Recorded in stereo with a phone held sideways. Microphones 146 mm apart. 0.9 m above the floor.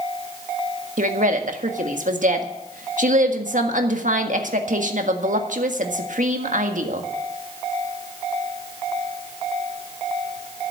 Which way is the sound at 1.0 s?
60° right (ahead or behind).